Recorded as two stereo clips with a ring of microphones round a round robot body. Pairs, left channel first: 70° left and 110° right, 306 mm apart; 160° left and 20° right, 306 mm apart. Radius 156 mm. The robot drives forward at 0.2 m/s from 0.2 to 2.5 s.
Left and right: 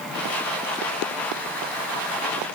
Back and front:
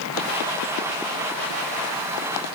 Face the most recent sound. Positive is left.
No sound to turn to.